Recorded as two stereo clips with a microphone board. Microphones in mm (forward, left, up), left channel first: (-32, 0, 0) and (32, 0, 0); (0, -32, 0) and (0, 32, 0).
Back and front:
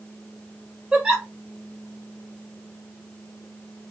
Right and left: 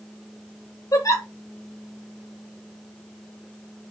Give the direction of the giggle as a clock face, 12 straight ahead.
3 o'clock.